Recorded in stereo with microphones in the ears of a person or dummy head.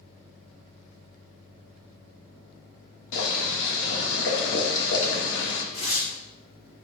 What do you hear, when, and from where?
3.1 s boiling: 70° left (ahead or behind), 2.5 m
5.7 s tearing paper: 30° left (ahead or behind), 1.7 m